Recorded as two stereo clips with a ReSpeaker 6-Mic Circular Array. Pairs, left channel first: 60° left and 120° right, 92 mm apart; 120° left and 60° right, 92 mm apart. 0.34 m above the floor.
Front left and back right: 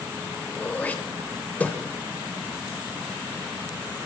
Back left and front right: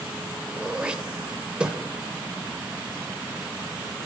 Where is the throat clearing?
5° left, 0.8 m.